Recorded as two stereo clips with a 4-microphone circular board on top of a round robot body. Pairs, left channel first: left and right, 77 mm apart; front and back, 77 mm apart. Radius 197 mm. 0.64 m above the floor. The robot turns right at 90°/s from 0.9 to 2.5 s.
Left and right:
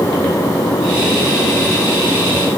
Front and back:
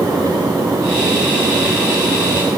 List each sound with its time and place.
Only background noise.